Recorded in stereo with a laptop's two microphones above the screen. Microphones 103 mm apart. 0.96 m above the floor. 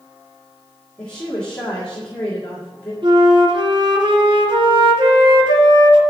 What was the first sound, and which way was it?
A woman speaking, 10° left (ahead or behind).